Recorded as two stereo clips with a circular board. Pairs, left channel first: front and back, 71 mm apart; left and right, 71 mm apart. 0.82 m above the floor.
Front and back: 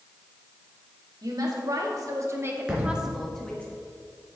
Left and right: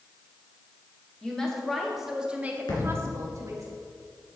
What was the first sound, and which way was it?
A woman speaking, 170° left.